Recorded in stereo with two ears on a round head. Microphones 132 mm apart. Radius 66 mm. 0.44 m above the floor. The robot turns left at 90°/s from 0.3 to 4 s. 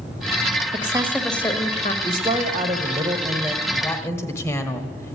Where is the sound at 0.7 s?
135° right, 1.4 m; by 1.9 s 115° left, 1.4 m.